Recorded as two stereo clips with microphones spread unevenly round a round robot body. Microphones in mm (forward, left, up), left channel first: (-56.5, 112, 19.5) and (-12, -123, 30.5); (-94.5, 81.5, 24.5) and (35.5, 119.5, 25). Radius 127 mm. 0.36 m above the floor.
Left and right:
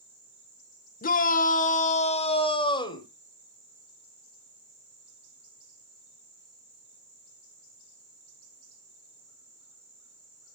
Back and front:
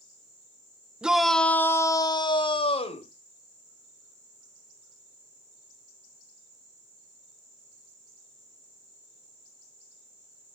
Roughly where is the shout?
Left.